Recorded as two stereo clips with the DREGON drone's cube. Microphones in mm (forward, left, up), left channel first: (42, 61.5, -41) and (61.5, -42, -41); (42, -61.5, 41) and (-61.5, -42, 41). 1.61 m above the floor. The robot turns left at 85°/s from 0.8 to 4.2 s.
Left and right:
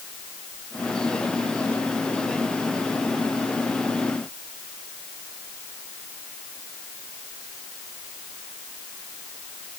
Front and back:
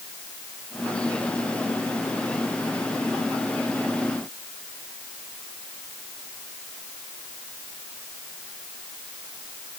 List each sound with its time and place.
Only background noise.